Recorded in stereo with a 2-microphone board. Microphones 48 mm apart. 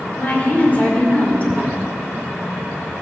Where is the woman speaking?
35° left (ahead or behind), 2.5 m.